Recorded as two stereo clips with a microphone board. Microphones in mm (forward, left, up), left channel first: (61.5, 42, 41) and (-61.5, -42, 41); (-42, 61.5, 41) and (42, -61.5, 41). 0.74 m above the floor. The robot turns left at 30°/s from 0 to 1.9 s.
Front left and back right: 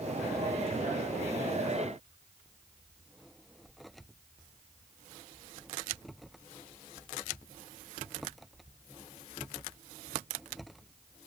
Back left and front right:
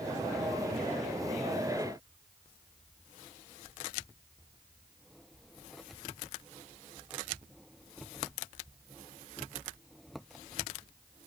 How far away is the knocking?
No knocking in this recording.